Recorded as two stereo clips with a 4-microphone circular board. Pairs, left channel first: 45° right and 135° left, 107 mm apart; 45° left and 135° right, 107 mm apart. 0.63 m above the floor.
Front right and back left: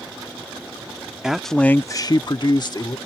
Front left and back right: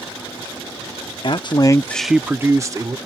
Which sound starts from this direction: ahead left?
A man speaking, at 1.2 s.